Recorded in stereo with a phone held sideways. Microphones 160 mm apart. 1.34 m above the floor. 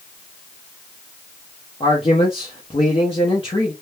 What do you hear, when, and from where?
1.8 s a man speaking: 35° left (ahead or behind), 0.8 m